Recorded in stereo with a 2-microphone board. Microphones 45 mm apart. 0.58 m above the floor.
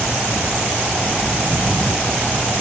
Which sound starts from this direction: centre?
Footsteps, at 1.2 s.